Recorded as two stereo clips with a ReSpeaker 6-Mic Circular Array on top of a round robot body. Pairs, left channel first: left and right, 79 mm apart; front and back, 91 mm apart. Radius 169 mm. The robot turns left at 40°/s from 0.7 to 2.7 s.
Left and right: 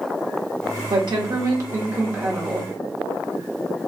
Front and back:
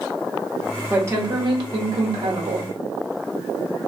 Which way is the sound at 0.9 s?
115° right.